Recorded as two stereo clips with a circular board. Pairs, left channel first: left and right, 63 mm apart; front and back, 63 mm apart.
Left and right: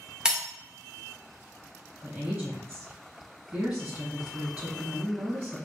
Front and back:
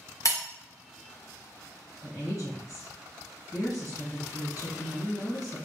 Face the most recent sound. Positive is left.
turn(degrees=-15)